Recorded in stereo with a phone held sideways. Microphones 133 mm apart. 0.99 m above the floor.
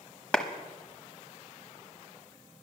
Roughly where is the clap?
Centre.